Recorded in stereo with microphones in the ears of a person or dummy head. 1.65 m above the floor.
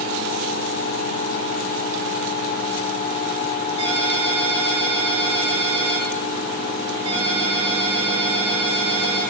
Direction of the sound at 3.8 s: 25° right (ahead or behind).